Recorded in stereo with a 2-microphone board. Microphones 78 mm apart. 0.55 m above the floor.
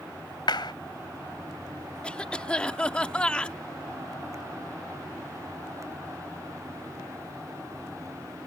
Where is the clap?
65° left (ahead or behind).